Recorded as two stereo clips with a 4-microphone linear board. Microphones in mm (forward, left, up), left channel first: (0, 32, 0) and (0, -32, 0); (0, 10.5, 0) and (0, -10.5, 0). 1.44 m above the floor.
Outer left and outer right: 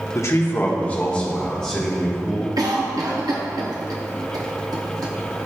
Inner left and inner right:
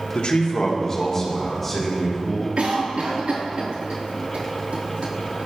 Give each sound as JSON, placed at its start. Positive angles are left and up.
{"t": 0.1, "sound": "a man speaking", "side_deg": 55, "distance_m": 1.0}
{"t": 2.6, "sound": "a cough", "side_deg": -75, "distance_m": 0.7}